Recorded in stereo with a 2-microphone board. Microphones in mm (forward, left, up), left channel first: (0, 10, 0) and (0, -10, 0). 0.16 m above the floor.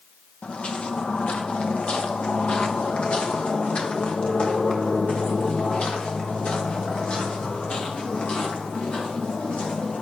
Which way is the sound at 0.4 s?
70° left (ahead or behind).